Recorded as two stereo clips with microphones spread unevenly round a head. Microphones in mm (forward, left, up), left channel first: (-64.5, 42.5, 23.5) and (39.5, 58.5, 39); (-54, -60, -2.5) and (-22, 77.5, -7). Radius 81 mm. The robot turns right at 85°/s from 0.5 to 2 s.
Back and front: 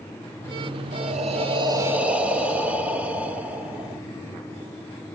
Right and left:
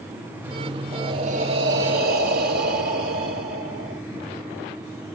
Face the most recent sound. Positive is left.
turn(degrees=85)